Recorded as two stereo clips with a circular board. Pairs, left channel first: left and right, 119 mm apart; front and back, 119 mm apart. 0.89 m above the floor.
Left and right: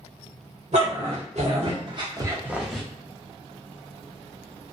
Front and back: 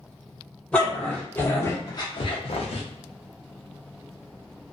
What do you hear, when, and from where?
0.7 s a dog barking: 80° right, 1.2 m; by 2.8 s 10° left, 0.6 m